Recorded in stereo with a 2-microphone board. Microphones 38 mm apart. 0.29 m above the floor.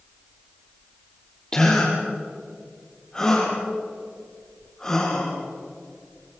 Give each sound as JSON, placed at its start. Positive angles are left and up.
{"t": 1.5, "sound": "a gasp", "side_deg": 20, "distance_m": 7.0}